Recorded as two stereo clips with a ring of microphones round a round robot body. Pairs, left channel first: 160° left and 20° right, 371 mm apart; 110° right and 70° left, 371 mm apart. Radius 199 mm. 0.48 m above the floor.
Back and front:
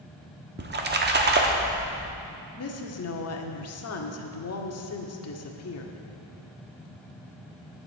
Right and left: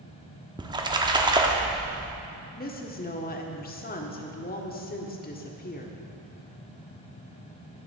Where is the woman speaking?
170° right, 1.4 m.